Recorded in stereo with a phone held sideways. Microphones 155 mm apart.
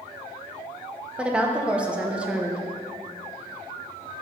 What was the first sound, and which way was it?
A woman speaking, 10° right (ahead or behind).